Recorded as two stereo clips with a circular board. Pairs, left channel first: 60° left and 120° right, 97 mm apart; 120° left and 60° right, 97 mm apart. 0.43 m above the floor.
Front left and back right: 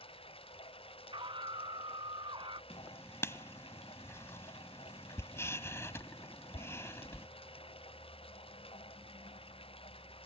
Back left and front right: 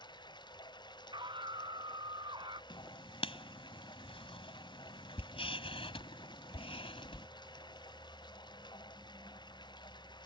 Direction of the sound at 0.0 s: 80° left.